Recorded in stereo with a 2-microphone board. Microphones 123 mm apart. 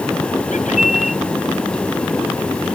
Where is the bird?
85° left.